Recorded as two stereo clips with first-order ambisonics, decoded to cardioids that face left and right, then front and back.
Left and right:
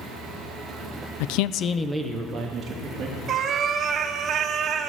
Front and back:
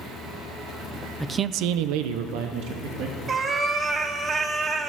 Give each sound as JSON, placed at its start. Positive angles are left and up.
{"t": 1.2, "sound": "a man speaking", "azimuth_deg": 90, "distance_m": 0.7}
{"t": 3.3, "sound": "a cat meowing", "azimuth_deg": -125, "distance_m": 1.0}